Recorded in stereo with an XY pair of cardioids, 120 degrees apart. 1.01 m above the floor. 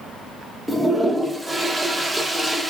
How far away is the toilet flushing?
About 0.8 m.